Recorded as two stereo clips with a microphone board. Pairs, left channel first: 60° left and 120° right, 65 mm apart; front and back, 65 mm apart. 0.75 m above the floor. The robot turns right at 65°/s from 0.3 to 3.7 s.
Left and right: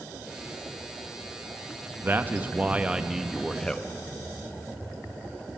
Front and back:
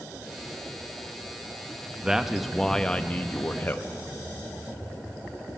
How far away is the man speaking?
About 0.6 m.